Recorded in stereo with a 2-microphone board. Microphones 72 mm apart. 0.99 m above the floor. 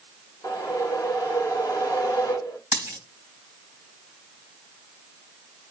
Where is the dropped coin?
40° right (ahead or behind), 3.5 m.